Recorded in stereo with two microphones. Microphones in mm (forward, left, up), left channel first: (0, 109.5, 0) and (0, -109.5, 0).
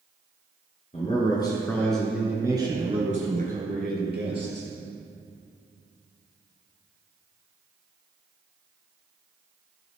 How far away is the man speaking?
About 2.0 m.